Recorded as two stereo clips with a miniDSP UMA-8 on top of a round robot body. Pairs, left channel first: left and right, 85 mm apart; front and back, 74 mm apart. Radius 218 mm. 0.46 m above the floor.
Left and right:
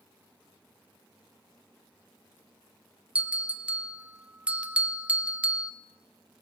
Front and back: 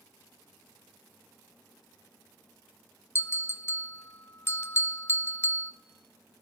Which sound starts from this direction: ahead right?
A bell, at 3.1 s.